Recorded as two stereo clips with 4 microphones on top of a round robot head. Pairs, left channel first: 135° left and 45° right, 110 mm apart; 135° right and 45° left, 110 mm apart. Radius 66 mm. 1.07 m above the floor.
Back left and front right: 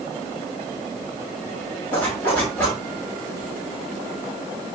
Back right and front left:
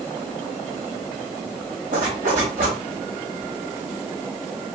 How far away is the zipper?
About 5 m.